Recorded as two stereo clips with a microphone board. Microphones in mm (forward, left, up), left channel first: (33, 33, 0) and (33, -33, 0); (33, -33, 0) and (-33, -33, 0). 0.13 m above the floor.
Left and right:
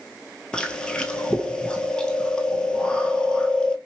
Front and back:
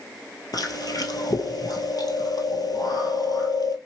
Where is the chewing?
10° left, 0.8 m.